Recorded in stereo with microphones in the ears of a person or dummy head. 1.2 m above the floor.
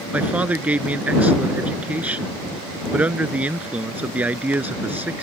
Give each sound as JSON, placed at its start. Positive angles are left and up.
{"t": 0.1, "sound": "a man speaking", "side_deg": -10}